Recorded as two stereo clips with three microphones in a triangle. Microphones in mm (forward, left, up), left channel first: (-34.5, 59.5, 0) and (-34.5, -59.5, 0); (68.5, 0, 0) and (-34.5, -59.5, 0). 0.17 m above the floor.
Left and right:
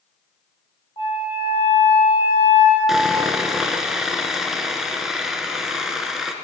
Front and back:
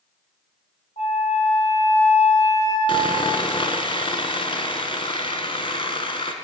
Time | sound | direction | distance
1.0 | a flute | 45° left | 3 m
2.9 | sawing | 5° right | 0.7 m